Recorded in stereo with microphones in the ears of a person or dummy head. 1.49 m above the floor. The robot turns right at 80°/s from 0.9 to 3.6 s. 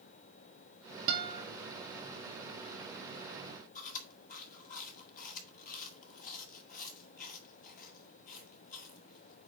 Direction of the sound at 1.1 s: 60° right (ahead or behind).